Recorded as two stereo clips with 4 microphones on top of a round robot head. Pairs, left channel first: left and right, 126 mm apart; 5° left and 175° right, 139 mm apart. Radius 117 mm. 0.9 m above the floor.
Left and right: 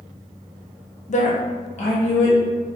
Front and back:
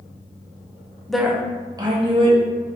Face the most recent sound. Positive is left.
turn(degrees=140)